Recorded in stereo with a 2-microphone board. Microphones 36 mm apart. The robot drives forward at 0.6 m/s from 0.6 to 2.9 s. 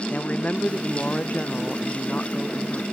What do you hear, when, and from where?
0.1 s a woman speaking: 40° left (ahead or behind)